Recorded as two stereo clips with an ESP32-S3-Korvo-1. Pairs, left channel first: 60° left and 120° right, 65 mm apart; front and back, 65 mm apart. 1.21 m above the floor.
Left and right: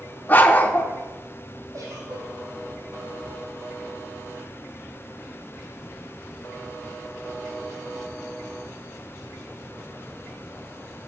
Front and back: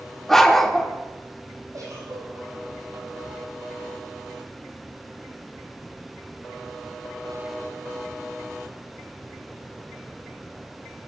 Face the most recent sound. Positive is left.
turn(degrees=-150)